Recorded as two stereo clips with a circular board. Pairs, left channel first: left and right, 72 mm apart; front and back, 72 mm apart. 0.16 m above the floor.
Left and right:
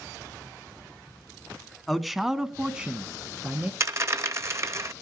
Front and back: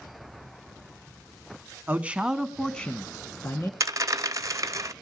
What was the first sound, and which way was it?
A man speaking, 175° left.